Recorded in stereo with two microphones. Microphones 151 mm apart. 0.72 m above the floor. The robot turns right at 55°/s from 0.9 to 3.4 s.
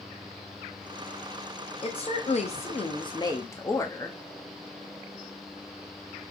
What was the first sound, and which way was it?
A woman speaking, 65° left.